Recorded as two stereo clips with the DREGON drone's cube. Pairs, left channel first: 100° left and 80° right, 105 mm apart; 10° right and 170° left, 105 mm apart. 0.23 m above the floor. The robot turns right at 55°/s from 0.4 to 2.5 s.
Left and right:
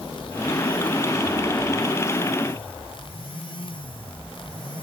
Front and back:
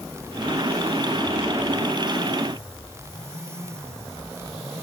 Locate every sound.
Only background noise.